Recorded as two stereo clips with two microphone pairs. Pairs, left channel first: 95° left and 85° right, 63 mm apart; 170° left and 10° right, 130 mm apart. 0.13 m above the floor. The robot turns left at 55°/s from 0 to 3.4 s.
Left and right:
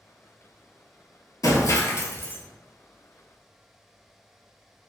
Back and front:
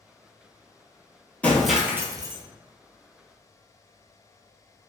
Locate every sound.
1.4 s breaking glass: 90° left, 0.6 m; by 2.4 s 35° left, 0.6 m